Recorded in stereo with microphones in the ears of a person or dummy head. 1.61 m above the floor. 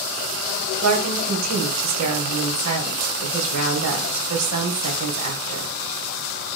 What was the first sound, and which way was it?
A woman speaking, 85° right.